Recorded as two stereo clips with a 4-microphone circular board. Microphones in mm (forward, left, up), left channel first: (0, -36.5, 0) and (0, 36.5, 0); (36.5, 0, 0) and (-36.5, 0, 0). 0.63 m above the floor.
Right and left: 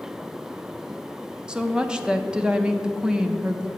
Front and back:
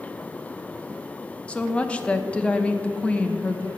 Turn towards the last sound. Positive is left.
turn(degrees=35)